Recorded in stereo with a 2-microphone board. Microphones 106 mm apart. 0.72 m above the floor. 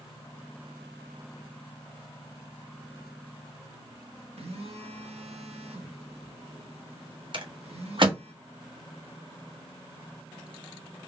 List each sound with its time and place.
4.4 s a phone buzzing: 70° right (ahead or behind), 1.4 m
7.3 s a rattle: 50° right (ahead or behind), 1.3 m